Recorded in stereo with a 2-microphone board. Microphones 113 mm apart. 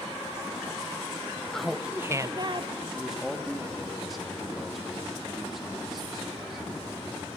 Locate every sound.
1.5 s laughter: 5° left (ahead or behind), 0.9 m; by 2.7 s 50° right (ahead or behind), 1.0 m
2.9 s a man speaking: centre (ahead or behind), 2.5 m